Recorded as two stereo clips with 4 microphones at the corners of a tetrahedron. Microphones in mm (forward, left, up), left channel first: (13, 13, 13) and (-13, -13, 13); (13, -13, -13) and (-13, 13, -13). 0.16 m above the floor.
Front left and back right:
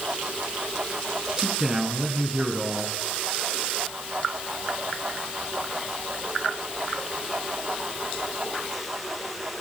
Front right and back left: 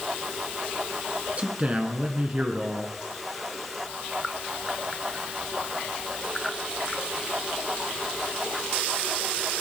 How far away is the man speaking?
About 1.6 m.